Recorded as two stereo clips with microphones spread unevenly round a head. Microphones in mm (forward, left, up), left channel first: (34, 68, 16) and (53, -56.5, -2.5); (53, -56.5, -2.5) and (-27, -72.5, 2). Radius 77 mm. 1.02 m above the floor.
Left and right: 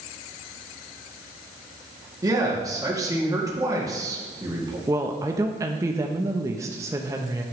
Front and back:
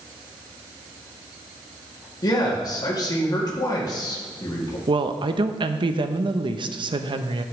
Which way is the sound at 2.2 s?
25° right.